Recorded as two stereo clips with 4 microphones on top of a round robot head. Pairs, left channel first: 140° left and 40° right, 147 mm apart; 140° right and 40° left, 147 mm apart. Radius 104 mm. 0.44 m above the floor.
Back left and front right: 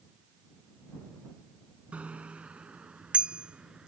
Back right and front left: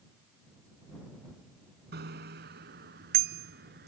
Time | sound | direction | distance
1.9 | a bicycle bell | 40° left | ?